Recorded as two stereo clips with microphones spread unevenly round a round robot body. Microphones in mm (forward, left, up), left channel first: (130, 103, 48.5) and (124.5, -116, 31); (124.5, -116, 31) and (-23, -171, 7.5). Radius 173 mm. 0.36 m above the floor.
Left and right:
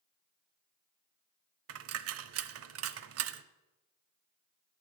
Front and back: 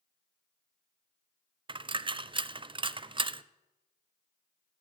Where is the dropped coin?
100° right, 0.6 m.